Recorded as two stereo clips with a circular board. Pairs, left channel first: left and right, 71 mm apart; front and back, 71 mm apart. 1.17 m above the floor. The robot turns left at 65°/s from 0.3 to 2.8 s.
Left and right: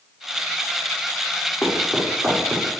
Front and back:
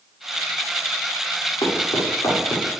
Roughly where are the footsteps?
Ahead.